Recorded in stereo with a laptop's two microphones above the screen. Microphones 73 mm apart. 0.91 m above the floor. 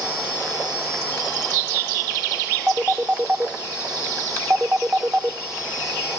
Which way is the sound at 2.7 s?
25° right (ahead or behind).